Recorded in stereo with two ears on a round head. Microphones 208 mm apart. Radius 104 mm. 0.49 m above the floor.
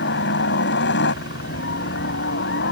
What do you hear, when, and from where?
0.0 s a helicopter: 50° left (ahead or behind)